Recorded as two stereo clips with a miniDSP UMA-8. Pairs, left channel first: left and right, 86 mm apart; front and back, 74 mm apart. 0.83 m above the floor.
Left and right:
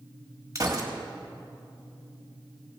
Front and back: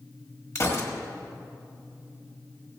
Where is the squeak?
I don't hear a squeak.